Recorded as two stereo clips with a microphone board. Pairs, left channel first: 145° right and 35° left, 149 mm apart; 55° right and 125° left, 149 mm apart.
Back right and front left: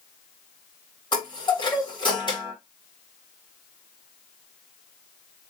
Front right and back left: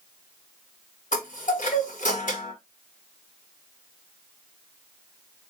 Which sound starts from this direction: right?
A chime, at 1.1 s.